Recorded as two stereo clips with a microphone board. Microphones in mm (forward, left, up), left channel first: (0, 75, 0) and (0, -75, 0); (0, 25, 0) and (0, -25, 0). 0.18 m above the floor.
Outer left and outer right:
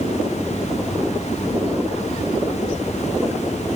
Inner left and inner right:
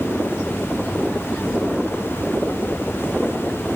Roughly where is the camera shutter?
I don't hear a camera shutter.